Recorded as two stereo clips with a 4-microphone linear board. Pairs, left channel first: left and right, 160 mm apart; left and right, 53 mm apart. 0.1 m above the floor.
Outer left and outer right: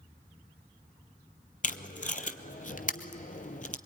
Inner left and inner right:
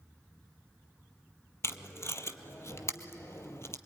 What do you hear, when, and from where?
1.6 s tape being pulled: 55° left (ahead or behind), 0.8 m